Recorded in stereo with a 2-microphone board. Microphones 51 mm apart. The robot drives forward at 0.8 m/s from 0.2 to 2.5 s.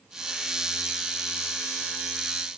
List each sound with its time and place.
Only background noise.